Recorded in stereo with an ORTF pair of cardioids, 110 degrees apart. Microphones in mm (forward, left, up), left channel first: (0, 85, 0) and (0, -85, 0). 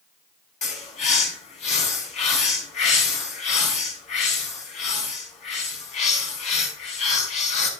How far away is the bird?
About 5 m.